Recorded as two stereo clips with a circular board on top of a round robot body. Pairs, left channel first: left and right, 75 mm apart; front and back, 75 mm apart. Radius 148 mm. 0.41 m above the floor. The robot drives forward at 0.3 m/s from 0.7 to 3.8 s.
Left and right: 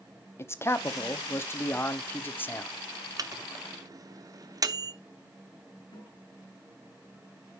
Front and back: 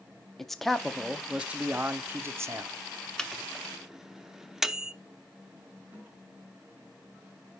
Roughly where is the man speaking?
Left.